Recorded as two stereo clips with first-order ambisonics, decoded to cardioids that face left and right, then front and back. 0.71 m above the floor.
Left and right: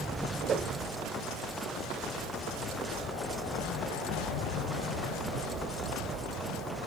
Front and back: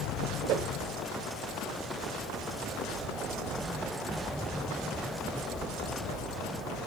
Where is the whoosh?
150° right, 0.8 m.